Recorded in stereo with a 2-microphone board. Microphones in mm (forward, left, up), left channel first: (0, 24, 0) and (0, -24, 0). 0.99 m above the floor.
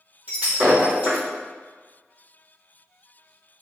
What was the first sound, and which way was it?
Breaking glass, 30° right (ahead or behind).